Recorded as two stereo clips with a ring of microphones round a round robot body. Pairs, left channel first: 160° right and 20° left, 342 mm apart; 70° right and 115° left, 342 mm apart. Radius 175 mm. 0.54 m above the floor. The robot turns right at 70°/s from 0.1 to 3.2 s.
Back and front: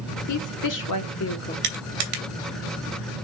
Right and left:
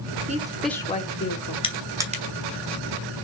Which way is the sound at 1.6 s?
5° left.